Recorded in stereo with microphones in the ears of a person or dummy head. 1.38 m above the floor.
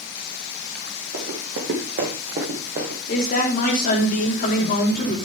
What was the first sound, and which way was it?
Running footsteps, 45° right (ahead or behind).